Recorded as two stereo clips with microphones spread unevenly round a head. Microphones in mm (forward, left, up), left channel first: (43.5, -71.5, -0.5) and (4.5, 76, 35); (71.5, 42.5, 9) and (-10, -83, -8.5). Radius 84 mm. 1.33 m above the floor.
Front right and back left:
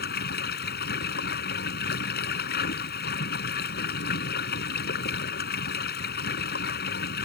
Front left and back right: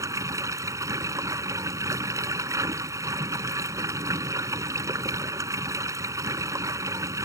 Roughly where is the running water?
Ahead right.